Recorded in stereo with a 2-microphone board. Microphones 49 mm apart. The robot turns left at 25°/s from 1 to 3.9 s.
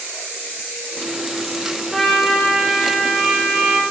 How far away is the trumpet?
About 0.7 m.